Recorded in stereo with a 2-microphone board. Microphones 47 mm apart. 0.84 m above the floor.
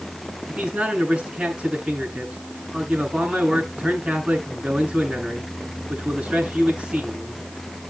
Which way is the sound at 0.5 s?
25° right (ahead or behind).